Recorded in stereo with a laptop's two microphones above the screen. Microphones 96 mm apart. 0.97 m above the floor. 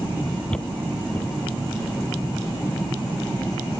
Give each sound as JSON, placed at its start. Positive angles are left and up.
{"t": 0.5, "sound": "footsteps", "side_deg": 10}